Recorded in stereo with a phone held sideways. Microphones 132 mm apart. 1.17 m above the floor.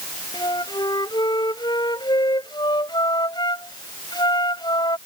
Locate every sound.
0.3 s a flute: 30° left (ahead or behind)